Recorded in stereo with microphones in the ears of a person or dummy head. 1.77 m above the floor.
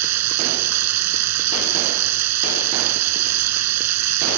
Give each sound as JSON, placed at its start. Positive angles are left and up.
{"t": 0.0, "sound": "running water", "side_deg": -90}